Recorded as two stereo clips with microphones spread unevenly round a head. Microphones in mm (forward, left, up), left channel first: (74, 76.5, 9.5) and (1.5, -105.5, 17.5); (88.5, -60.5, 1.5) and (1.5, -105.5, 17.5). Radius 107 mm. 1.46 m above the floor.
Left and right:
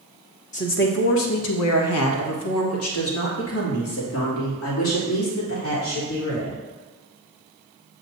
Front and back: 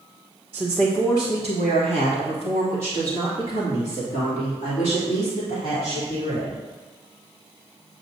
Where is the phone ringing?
I don't hear a phone ringing.